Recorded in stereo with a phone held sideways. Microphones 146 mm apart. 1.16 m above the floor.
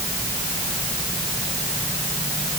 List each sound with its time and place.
Only background noise.